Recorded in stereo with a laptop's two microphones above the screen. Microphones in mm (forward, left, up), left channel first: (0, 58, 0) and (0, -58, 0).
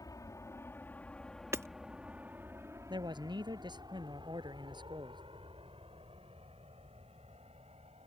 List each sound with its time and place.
0.0 s an aircraft: 30° left (ahead or behind); by 8.1 s 65° right (ahead or behind)
1.5 s hammering: 25° right (ahead or behind)
2.9 s a man speaking: 40° right (ahead or behind)